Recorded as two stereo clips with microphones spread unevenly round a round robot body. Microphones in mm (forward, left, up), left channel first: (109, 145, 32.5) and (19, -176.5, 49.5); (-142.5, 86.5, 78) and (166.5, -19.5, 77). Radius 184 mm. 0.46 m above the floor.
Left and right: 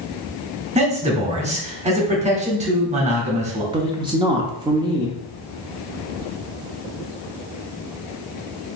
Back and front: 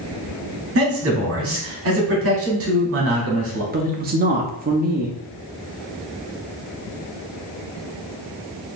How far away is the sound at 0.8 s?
About 1.8 m.